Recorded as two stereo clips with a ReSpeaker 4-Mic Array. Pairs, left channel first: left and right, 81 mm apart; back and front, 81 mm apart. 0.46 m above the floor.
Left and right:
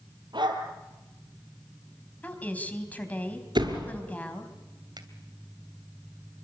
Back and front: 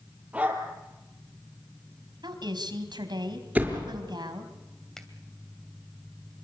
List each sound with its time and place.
0.3 s a dog barking: 75° right, 4 m
2.2 s a woman speaking: 20° left, 3.5 m
3.5 s a door slam: 75° right, 5.5 m
5.0 s a finger snap: 100° right, 2.5 m